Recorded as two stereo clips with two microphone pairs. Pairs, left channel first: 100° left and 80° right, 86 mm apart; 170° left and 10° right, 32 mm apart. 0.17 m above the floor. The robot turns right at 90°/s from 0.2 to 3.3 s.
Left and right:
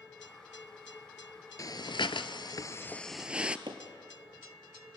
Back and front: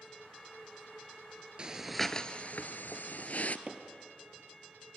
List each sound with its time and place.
1.6 s breathing: 50° left, 0.8 m; by 3.6 s 155° right, 0.8 m
3.7 s hammering: 75° right, 2.5 m